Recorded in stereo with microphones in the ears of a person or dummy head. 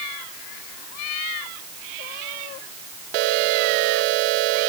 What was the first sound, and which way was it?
Only background noise.